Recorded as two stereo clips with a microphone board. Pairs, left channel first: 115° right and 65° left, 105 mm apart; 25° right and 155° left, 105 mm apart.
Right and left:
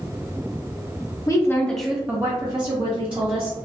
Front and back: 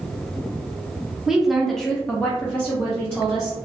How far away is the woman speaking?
About 0.6 m.